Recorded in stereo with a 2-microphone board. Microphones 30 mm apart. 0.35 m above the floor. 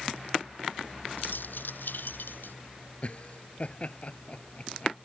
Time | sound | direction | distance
1.2 | keys jangling | 80° left | ?
3.0 | laughter | 40° left (ahead or behind) | ?